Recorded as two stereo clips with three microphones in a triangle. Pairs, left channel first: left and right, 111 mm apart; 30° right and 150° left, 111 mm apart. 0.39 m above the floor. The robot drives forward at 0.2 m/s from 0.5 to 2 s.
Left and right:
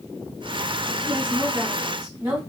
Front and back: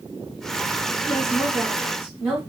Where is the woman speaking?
155° right, 1.2 m; by 2.4 s 160° right, 1.3 m.